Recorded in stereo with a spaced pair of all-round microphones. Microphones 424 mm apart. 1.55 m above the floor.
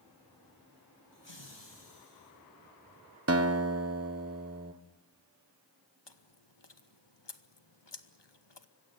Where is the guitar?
35° right (ahead or behind), 1.2 m.